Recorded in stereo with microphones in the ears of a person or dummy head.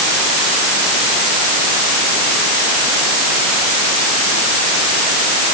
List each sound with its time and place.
Only background noise.